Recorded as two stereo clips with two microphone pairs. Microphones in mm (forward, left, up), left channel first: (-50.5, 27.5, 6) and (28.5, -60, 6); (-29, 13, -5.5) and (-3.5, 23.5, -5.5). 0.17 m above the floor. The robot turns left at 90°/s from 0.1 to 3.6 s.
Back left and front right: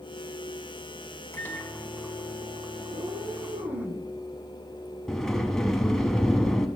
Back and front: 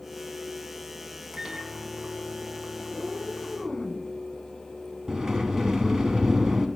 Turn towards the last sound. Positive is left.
turn(degrees=50)